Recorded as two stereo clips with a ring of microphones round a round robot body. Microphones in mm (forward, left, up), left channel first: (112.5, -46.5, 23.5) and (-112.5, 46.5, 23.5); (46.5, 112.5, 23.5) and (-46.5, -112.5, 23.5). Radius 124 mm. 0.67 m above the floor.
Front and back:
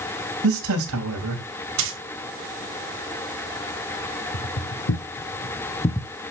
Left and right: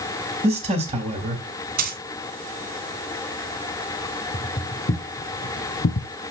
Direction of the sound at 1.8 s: 165° right.